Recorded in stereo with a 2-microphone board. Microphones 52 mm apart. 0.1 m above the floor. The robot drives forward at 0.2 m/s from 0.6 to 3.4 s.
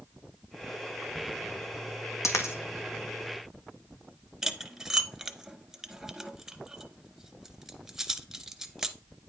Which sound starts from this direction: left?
A dropped coin, at 2.2 s.